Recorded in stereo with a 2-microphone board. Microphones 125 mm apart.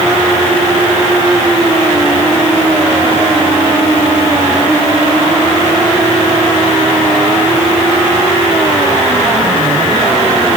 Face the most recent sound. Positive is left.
No sound to turn to.